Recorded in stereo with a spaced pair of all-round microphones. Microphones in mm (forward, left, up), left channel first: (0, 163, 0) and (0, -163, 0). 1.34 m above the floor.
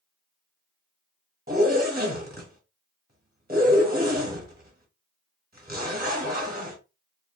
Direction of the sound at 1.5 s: 30° right (ahead or behind).